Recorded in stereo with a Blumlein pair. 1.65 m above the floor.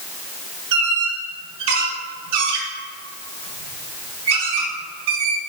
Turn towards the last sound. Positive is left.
turn(degrees=-50)